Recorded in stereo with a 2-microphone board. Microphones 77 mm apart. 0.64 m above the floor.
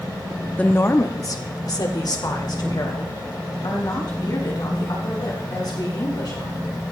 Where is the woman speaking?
15° left (ahead or behind), 0.8 m; by 6.7 s 60° left (ahead or behind), 7 m.